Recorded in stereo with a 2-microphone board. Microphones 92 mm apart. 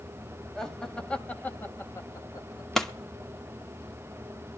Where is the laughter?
5° left (ahead or behind), 1.7 m; by 2.6 s 45° left (ahead or behind), 1.3 m.